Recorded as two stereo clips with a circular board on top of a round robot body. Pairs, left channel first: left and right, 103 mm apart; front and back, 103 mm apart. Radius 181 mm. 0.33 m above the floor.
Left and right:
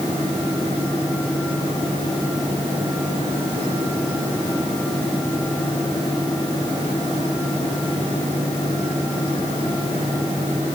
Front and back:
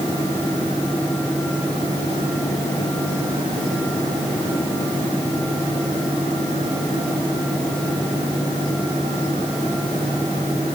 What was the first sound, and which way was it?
Only background noise.